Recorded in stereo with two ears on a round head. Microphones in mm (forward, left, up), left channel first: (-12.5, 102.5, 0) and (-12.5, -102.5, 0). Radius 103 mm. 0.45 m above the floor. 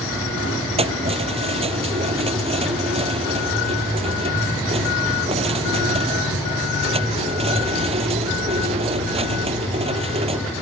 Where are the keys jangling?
30° right (ahead or behind).